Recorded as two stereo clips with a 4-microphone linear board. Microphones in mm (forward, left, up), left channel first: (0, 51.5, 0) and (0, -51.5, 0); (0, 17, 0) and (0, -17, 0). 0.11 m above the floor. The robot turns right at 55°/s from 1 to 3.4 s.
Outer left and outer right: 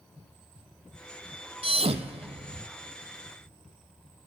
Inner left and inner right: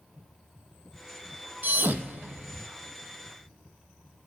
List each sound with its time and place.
1.6 s a thud: 65° right (ahead or behind), 0.8 m; by 2.7 s 50° right (ahead or behind), 0.8 m